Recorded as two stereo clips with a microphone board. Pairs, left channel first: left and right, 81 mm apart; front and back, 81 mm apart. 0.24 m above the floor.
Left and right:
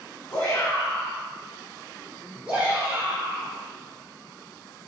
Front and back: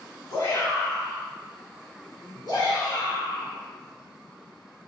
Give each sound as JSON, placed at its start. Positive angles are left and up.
{"t": 0.3, "sound": "a shout", "azimuth_deg": 30, "distance_m": 1.5}